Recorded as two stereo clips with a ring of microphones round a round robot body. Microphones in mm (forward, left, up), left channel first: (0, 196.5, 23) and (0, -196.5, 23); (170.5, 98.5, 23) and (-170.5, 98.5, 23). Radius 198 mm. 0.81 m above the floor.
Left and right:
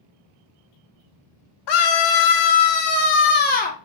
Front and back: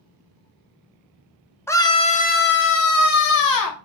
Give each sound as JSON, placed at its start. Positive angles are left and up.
{"t": 1.7, "sound": "a scream", "azimuth_deg": 80, "distance_m": 1.9}